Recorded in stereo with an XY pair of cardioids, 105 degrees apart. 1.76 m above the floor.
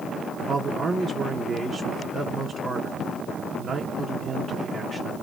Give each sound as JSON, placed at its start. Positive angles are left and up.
{"t": 0.5, "sound": "a man speaking", "azimuth_deg": -50, "distance_m": 0.8}